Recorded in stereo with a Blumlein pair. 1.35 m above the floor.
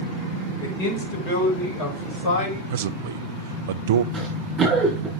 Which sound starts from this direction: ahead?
Running footsteps, at 4.1 s.